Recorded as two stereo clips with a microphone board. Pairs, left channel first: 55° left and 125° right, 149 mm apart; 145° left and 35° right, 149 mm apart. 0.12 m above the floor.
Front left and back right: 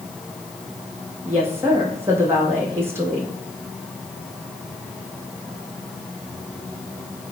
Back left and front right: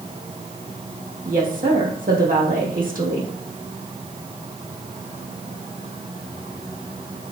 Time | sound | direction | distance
1.2 | a woman speaking | 50° right | 3.5 m